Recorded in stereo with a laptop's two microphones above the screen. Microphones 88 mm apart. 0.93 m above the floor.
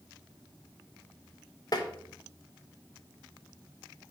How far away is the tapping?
About 1.0 m.